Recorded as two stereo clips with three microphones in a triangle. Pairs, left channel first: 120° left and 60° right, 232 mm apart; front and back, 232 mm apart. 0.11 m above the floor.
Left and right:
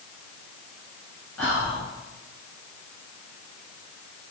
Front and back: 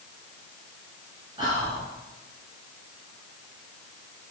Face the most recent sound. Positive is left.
turn(degrees=-165)